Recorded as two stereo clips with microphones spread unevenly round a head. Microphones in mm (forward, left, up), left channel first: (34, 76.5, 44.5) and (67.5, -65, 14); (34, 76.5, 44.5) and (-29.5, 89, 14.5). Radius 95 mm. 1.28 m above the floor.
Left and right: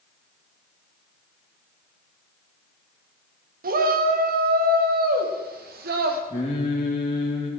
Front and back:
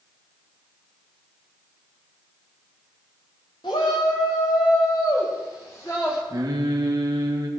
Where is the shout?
65° right, 1.9 m; by 6.2 s 80° right, 3 m.